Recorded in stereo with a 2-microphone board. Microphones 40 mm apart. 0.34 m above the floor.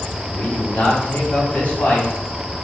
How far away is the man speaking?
About 1.1 m.